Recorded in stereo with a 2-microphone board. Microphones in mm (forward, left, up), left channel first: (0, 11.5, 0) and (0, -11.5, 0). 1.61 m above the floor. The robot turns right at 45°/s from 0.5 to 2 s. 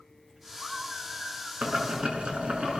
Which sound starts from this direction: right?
Boiling, at 1.6 s.